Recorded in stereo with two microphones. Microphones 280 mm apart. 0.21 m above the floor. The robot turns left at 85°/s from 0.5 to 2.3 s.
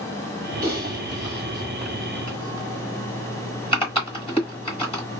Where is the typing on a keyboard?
30° right (ahead or behind), 1.6 m; by 5.0 s 20° left (ahead or behind), 1.6 m.